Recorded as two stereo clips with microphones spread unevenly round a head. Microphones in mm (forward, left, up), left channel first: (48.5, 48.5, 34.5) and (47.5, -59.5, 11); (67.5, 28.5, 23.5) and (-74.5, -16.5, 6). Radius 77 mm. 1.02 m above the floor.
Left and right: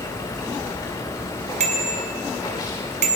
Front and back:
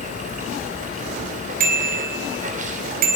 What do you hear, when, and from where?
0.0 s running water: 160° left, 3 m
1.6 s a bicycle bell: 125° right, 3 m